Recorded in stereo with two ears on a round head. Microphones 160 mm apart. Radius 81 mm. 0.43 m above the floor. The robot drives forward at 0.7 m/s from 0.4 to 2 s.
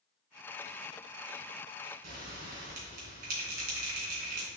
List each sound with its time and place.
2.0 s a bell: 50° right (ahead or behind), 2.5 m